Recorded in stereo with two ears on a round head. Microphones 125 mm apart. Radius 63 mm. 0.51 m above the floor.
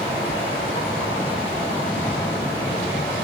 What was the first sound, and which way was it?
Running water, 35° left (ahead or behind).